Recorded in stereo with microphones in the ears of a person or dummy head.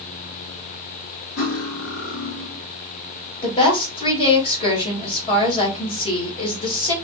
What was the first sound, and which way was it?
Cutlery clinking, 70° left (ahead or behind).